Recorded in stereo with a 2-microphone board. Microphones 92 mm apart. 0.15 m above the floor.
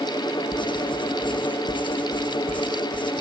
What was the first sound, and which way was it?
Writing, 60° left (ahead or behind).